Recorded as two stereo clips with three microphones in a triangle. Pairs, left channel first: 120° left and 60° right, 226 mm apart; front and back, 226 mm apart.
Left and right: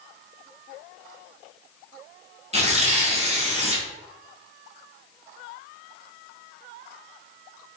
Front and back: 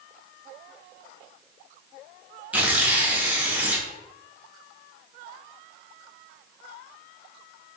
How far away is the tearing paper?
About 0.6 m.